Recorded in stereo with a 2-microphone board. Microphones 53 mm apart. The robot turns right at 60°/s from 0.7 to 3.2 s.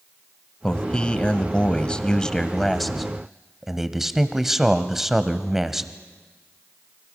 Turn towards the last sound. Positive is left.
turn(degrees=-5)  # may be behind; listen again after turning